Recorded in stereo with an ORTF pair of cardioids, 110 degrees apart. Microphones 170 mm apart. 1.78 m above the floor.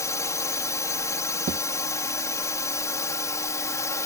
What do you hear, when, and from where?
0.0 s a drone: 20° left
1.5 s a thud: 50° right